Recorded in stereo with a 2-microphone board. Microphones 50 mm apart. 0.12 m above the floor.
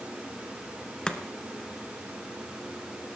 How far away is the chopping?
About 1.5 m.